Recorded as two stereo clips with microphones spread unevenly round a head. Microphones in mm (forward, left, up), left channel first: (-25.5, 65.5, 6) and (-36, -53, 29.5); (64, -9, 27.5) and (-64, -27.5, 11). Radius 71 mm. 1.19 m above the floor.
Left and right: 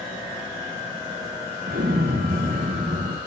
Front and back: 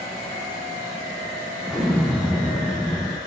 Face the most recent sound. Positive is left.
turn(degrees=-80)